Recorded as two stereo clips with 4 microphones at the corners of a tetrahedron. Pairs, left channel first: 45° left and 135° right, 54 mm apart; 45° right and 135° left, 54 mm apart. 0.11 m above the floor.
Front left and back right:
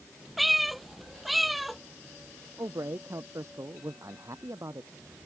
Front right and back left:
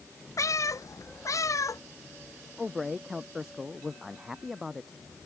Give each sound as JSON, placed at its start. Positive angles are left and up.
{"t": 0.4, "sound": "a cat meowing", "azimuth_deg": -45}
{"t": 2.6, "sound": "a man speaking", "azimuth_deg": -140}